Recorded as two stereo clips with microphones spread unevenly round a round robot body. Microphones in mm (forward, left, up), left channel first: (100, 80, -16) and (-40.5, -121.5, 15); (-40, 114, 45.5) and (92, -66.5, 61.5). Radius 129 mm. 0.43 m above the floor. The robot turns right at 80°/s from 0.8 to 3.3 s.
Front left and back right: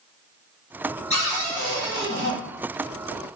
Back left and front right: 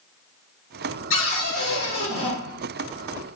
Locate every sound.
1.1 s a cupboard door: 115° left, 1.6 m; by 2.4 s 145° right, 1.6 m